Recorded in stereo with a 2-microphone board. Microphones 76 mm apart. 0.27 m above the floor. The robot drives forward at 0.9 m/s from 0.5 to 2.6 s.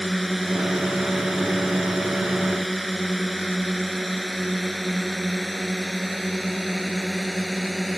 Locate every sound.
0.0 s a drone: centre (ahead or behind)